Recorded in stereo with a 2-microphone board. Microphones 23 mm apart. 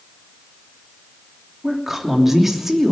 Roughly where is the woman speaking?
Centre.